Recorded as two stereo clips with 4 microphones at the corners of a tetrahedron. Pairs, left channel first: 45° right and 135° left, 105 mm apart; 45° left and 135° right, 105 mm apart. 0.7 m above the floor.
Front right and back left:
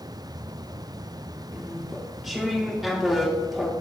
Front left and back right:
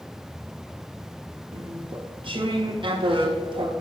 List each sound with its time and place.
1.5 s chewing: 140° right, 0.8 m